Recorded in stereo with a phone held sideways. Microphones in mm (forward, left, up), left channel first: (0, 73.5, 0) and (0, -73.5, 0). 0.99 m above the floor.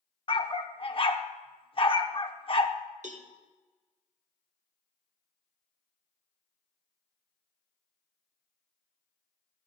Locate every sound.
0.3 s a dog barking: 40° left (ahead or behind), 0.6 m
3.0 s a cowbell: 55° right (ahead or behind), 1.0 m